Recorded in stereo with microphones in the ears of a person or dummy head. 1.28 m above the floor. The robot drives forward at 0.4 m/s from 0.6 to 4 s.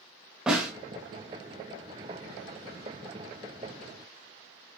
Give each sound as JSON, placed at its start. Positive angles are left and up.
{"t": 0.5, "sound": "a snare drum", "side_deg": -5, "distance_m": 0.8}